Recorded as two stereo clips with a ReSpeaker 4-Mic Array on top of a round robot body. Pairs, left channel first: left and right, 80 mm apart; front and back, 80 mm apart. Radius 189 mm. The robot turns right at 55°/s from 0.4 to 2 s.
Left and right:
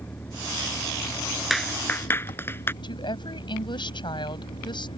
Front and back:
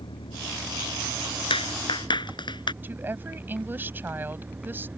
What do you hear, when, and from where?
0.0 s an engine running: 20° left; by 5.0 s 110° left
1.5 s a clap: straight ahead; by 2.7 s 25° left
2.8 s a woman speaking: 115° left